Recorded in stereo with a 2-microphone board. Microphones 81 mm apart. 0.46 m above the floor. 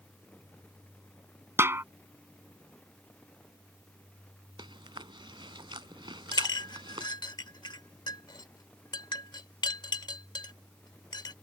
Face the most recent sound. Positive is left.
turn(degrees=65)  # may be behind; listen again after turning